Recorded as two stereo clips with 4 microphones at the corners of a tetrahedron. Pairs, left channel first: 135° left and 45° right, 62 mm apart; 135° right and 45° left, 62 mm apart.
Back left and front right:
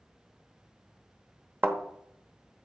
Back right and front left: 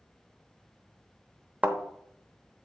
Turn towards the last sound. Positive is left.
turn(degrees=-10)